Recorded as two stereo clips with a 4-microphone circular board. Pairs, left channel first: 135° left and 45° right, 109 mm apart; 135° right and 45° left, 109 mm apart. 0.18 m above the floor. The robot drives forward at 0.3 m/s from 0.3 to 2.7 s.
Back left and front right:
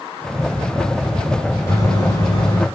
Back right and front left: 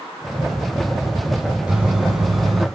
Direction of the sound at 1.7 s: 115° left.